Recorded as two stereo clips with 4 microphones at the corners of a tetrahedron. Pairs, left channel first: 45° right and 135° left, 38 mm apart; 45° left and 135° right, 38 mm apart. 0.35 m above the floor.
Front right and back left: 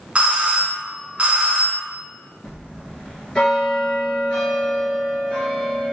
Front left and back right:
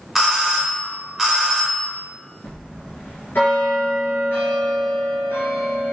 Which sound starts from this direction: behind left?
A doorbell, at 0.1 s.